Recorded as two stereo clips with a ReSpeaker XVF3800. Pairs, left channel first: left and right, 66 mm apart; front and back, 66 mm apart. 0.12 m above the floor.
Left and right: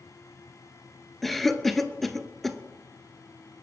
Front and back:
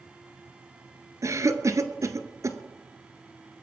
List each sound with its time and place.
1.2 s a cough: 175° left, 1.6 m